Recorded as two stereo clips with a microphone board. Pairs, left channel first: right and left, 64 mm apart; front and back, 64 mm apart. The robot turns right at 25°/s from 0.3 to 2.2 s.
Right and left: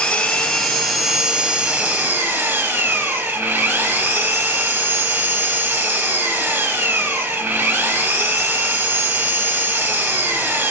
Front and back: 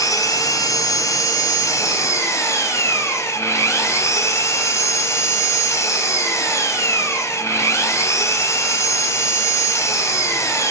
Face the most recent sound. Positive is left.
turn(degrees=40)